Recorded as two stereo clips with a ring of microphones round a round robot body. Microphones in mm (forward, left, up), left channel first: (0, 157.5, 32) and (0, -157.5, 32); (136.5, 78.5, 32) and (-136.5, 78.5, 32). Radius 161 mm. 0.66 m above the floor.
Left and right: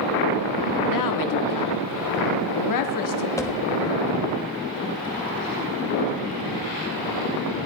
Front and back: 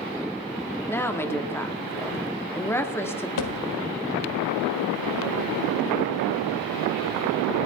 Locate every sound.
0.9 s a woman speaking: 80° left, 1.6 m
3.4 s a thud: 10° left, 1.5 m